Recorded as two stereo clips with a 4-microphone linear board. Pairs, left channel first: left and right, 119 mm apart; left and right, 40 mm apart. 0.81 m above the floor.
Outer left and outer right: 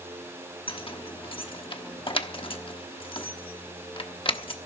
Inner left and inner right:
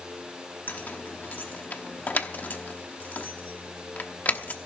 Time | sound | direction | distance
0.7 | keys jangling | 45° left (ahead or behind) | 1.0 m